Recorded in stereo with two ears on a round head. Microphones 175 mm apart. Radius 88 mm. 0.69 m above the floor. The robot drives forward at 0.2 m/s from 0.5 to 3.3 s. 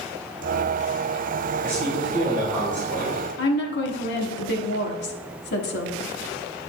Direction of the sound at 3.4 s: 60° left (ahead or behind).